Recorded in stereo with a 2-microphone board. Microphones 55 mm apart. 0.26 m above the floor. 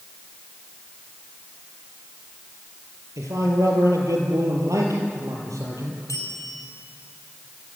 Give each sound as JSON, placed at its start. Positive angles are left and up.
{"t": 3.2, "sound": "a man speaking", "side_deg": -75, "distance_m": 6.5}
{"t": 6.1, "sound": "a bell", "side_deg": 75, "distance_m": 7.0}